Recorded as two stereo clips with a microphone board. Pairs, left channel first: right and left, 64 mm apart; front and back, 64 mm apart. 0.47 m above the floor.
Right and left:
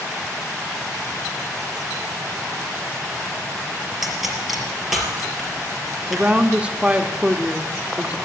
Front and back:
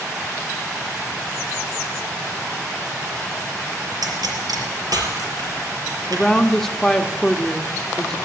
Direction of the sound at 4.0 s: 175° left.